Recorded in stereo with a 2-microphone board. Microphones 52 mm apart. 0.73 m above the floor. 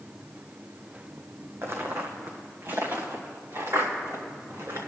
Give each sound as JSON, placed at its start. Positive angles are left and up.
{"t": 1.6, "sound": "footsteps", "side_deg": -55, "distance_m": 1.8}